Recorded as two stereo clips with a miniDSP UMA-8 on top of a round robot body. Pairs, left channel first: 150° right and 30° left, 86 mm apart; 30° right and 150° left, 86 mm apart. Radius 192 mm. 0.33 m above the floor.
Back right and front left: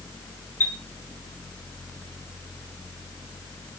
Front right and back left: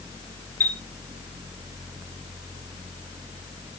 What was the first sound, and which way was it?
A chime, 90° right.